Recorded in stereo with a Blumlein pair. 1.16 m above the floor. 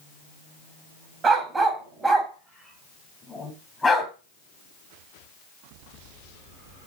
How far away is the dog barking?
About 3 m.